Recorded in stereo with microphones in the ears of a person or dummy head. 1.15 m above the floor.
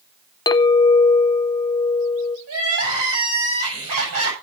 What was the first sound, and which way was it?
A clink, 20° left (ahead or behind).